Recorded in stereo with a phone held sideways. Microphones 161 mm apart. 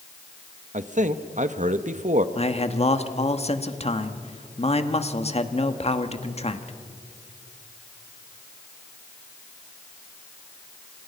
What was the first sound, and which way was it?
A man speaking, 50° right (ahead or behind).